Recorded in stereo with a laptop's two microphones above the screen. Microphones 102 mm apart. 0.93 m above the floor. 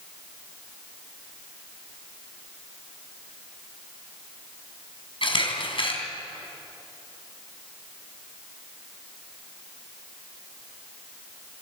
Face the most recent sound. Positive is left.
turn(degrees=60)  # may be behind; listen again after turning